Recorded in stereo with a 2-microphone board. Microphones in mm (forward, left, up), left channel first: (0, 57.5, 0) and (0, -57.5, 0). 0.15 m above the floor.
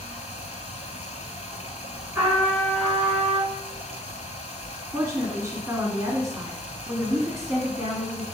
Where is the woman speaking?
25° right (ahead or behind), 1.3 m.